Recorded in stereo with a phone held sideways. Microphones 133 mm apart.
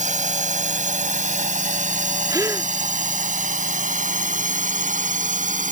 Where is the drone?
70° right (ahead or behind); by 5.7 s 80° right.